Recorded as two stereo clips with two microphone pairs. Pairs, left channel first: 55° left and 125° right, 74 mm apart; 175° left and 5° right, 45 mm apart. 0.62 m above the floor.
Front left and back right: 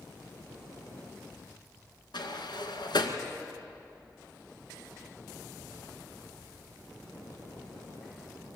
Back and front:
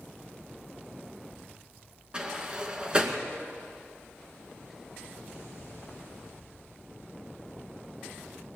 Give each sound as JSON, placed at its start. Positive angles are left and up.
{"t": 2.1, "sound": "a sliding door", "azimuth_deg": 60, "distance_m": 2.0}